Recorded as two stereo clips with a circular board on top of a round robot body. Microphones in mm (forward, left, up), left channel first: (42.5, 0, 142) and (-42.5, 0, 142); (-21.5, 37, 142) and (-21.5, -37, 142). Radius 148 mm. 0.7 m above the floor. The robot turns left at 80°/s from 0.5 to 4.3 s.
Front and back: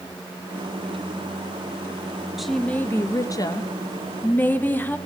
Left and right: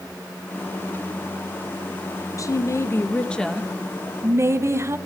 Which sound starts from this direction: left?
A woman speaking, at 2.4 s.